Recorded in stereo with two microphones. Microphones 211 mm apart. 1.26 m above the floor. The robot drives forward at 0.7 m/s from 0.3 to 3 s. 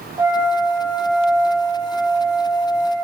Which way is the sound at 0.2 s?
15° right (ahead or behind).